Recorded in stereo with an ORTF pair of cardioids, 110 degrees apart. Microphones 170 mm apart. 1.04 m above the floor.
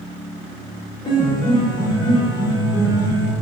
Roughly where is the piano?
Ahead left.